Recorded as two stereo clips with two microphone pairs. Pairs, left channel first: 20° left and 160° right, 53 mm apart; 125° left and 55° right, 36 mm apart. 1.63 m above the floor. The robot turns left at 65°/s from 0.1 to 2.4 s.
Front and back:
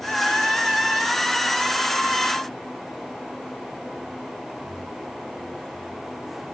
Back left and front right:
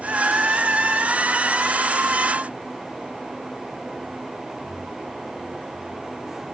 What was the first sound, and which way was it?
Only background noise.